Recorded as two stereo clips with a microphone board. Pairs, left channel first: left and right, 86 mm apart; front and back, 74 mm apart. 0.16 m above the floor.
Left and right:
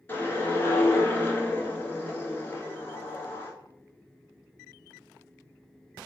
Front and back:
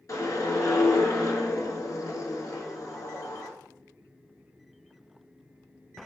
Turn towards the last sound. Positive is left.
turn(degrees=30)